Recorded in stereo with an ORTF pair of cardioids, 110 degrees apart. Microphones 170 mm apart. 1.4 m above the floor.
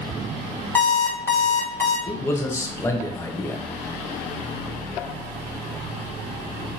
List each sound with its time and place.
0.8 s an alarm clock: 15° left, 1.4 m
2.1 s a man speaking: 15° left, 0.8 m